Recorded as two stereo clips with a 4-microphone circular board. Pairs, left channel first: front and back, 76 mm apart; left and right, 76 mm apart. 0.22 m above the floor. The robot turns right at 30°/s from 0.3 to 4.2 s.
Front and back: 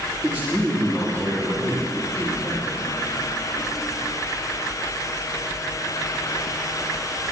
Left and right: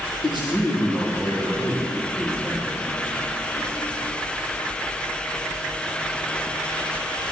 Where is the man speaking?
110° left, 7 m; by 2.8 s straight behind, 7 m.